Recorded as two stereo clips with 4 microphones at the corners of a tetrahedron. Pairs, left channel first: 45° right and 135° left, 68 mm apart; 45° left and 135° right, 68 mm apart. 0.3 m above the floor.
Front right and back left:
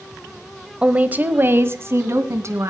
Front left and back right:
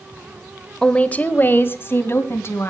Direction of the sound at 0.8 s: 100° left.